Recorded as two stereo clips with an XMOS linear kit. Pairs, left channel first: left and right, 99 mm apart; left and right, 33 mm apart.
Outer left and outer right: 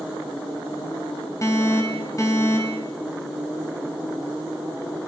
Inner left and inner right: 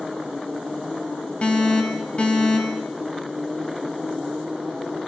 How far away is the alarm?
About 3 m.